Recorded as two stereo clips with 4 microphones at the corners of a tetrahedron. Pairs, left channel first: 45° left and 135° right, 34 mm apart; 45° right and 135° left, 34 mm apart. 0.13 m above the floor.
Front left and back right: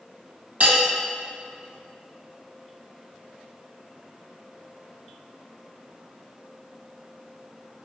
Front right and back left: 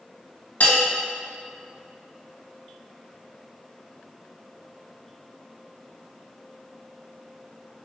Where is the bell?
85° right, 1.4 m.